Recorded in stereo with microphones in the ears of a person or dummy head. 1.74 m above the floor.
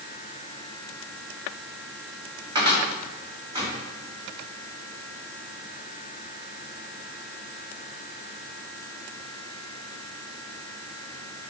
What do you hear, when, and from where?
2.5 s a cupboard door: 15° right (ahead or behind), 2 m